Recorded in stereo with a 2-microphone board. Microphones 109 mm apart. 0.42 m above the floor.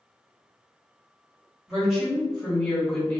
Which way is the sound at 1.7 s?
5° right (ahead or behind).